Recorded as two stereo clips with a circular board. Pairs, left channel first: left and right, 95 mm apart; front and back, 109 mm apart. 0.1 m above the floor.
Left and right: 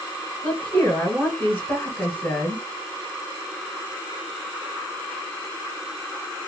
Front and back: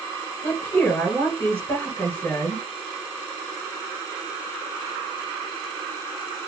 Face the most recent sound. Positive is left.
turn(degrees=50)